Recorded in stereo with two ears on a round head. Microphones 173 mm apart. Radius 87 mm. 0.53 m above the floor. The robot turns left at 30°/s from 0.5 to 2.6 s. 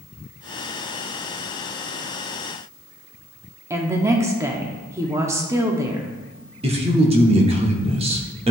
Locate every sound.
3.7 s a woman speaking: 15° right (ahead or behind), 0.7 m
6.6 s a man speaking: 30° right (ahead or behind), 0.9 m